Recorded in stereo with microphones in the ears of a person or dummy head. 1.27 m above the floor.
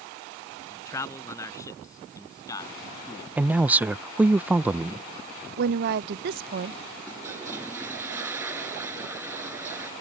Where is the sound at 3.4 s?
10° right (ahead or behind).